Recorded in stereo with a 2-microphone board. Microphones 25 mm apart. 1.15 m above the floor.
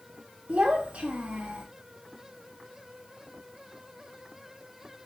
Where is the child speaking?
65° right (ahead or behind), 0.8 m.